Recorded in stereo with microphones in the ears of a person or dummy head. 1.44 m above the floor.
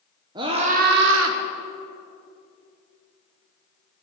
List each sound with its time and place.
0.3 s a scream: 25° right (ahead or behind), 1.2 m; by 1.4 s 70° right (ahead or behind), 1.0 m